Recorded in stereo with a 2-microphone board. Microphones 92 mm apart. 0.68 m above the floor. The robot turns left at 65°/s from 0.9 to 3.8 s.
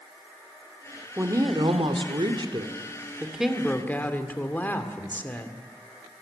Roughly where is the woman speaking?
Ahead right.